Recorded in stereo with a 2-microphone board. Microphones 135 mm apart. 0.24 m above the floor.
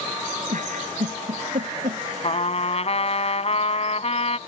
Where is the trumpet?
50° left (ahead or behind).